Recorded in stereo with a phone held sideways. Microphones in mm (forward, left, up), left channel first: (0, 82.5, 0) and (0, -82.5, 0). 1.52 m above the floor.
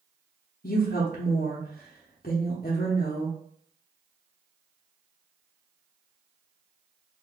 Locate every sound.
0.6 s a woman speaking: 65° left (ahead or behind), 0.6 m